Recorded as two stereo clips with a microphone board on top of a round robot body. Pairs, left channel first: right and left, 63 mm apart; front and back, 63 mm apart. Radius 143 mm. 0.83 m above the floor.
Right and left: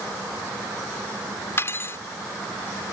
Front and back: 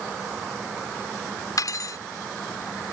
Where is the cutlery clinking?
35° right.